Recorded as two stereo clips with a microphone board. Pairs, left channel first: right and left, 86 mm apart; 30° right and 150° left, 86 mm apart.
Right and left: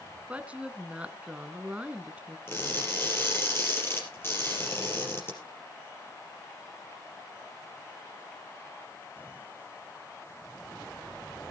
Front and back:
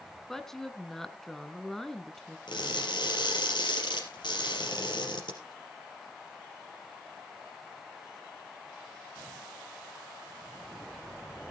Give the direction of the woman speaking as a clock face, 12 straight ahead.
10 o'clock.